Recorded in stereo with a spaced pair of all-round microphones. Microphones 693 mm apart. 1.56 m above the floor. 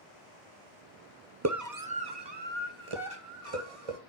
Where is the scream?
20° right (ahead or behind), 1.2 m; by 4.0 s 55° right (ahead or behind), 2 m.